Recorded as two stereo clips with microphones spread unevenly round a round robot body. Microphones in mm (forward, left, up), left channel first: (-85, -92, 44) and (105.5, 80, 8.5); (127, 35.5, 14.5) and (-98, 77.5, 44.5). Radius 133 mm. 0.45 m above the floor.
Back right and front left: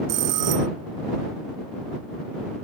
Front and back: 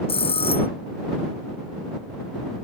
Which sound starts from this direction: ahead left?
A bell, at 0.1 s.